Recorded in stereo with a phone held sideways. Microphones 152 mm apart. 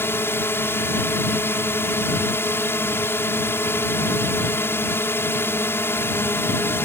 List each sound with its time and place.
0.0 s a drone: 15° left (ahead or behind)